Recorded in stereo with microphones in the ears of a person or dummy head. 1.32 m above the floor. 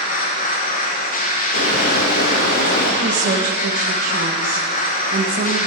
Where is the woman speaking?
50° right (ahead or behind), 1.2 m.